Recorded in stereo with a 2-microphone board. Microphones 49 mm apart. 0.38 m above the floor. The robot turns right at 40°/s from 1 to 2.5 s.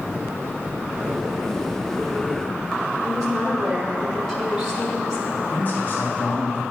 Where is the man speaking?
35° left (ahead or behind), 2 m.